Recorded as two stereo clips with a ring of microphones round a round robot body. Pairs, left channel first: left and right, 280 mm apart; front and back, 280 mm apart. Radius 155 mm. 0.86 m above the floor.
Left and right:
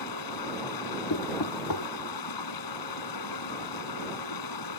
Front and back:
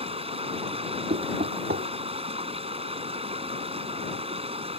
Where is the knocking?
120° left.